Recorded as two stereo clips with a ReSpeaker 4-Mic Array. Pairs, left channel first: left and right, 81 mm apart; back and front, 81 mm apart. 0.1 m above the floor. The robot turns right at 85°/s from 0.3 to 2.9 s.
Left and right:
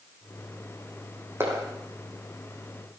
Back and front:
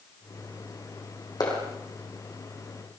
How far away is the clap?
About 4.5 m.